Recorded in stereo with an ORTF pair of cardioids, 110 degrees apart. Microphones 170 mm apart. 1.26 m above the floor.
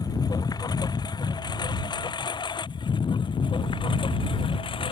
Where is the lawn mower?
25° left; by 4.9 s 30° left.